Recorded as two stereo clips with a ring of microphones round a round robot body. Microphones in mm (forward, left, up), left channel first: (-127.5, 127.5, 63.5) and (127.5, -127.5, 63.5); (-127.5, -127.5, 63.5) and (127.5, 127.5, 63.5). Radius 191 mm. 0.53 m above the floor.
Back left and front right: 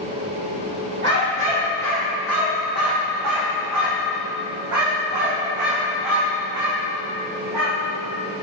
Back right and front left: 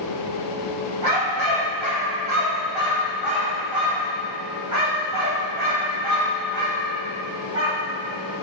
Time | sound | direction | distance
1.0 | a dog barking | 15° left | 5.5 m